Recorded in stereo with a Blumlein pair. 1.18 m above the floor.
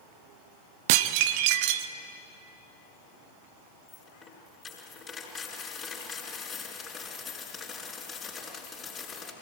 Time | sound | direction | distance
0.9 | dishes clattering | 45° right | 0.9 m
3.9 | a dropped coin | 25° left | 5 m